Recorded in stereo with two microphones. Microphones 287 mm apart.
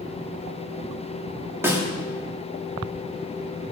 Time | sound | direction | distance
1.6 | a snare drum | 10° right (ahead or behind) | 3 m